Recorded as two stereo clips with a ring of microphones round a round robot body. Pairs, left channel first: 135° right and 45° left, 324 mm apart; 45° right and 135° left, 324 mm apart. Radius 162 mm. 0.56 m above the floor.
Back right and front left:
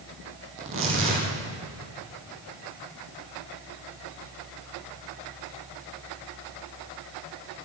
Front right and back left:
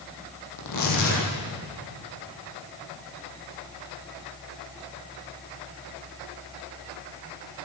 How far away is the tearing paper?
About 8.5 m.